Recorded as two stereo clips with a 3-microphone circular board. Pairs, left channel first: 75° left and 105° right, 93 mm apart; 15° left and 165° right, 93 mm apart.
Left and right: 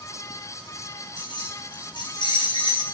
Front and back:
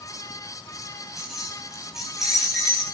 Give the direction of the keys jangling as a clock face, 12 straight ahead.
8 o'clock.